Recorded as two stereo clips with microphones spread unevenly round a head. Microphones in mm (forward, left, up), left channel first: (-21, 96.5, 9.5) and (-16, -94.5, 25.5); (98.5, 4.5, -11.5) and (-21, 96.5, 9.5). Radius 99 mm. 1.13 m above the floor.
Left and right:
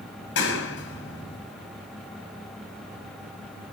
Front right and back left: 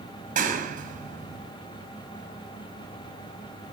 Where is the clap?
115° left, 7 m.